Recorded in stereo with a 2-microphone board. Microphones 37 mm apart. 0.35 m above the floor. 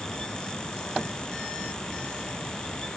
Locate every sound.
Only background noise.